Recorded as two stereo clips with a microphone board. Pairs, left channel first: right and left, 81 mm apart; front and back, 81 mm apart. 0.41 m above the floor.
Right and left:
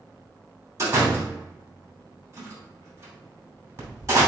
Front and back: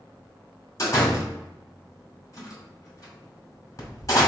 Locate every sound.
0.8 s a door slam: 45° left, 2.5 m